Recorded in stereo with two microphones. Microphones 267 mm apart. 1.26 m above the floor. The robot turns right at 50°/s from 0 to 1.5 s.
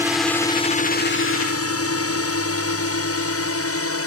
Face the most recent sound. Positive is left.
turn(degrees=55)  # may be behind; listen again after turning